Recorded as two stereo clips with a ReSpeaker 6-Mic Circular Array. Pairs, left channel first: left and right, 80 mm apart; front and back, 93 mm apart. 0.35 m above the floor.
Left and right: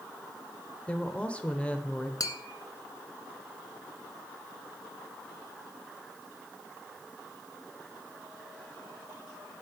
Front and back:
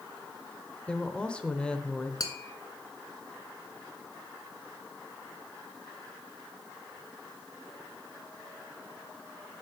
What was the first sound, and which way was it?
A woman speaking, 55° left.